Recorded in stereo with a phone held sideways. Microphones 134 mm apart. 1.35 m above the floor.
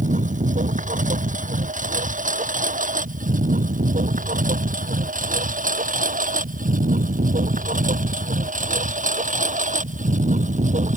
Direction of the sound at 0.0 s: 70° right (ahead or behind).